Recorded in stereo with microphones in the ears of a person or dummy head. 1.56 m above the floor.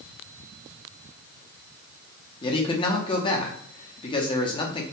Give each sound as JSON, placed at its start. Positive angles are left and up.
{"t": 2.4, "sound": "a man speaking", "side_deg": 25, "distance_m": 0.6}